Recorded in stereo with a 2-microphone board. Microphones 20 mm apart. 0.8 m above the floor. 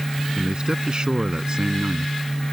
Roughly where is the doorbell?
I don't hear a doorbell.